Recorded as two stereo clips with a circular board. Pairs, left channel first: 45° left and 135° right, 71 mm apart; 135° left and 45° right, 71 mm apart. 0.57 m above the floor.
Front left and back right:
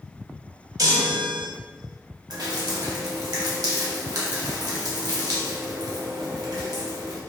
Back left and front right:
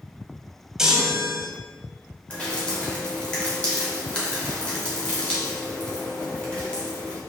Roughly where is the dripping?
Behind right.